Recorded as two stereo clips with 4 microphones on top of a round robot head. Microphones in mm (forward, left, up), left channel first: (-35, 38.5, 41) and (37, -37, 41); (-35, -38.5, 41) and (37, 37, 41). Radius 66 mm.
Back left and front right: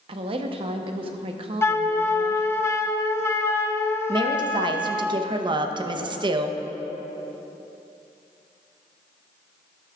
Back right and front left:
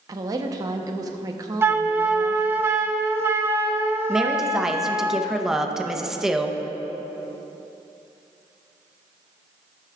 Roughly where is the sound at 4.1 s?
Ahead right.